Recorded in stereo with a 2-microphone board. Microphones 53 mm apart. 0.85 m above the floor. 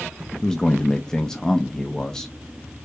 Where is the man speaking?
15° left (ahead or behind), 0.7 m.